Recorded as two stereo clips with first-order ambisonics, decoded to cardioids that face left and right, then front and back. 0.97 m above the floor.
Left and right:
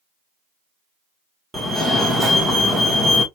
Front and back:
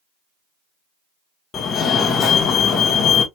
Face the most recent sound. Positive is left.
turn(degrees=-20)